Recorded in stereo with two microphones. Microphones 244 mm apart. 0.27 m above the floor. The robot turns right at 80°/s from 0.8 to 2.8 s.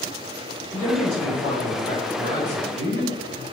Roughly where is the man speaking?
Ahead.